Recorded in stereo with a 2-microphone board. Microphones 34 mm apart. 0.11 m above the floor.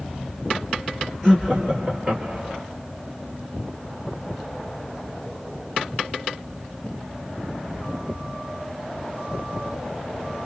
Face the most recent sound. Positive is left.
turn(degrees=-30)  # may be behind; listen again after turning